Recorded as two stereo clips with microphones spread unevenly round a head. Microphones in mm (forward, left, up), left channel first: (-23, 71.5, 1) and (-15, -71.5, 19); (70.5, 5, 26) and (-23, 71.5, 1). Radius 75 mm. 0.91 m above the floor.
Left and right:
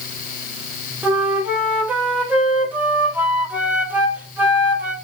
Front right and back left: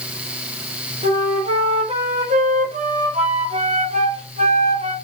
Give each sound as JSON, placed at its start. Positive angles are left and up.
{"t": 1.0, "sound": "a flute", "azimuth_deg": -165, "distance_m": 1.0}